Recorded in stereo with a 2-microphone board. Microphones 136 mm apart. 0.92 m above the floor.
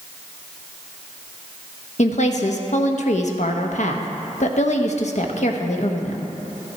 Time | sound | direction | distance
2.0 | a woman speaking | 60° left (ahead or behind) | 1.0 m